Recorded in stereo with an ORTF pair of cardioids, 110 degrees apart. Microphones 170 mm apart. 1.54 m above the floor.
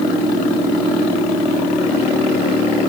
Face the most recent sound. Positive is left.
No sound to turn to.